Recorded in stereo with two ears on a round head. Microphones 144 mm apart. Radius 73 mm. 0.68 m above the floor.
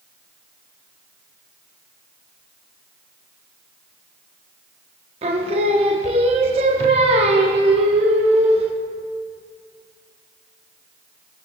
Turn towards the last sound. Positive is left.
turn(degrees=-40)  # may be behind; listen again after turning